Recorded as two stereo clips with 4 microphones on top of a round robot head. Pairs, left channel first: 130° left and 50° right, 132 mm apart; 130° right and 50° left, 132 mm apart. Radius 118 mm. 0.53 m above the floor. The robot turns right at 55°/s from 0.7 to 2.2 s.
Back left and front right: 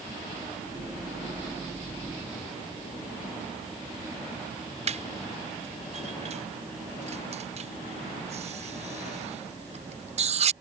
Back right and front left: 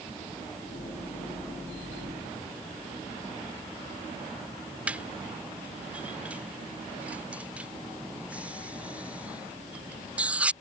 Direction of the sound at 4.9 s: 30° right.